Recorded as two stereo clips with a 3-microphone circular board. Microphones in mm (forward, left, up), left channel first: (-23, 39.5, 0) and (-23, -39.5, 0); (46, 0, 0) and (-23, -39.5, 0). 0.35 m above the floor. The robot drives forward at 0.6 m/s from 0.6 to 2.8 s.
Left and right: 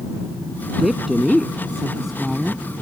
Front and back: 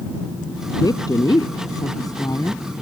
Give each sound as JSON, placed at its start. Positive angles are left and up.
{"t": 0.8, "sound": "a woman speaking", "azimuth_deg": 0}